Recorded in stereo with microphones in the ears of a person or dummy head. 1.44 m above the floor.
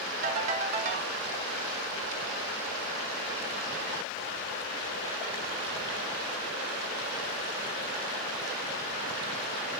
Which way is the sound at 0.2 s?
40° right (ahead or behind).